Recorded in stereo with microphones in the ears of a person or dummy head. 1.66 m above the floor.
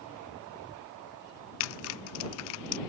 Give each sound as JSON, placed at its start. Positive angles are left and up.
{"t": 1.6, "sound": "typing on a keyboard", "side_deg": 70}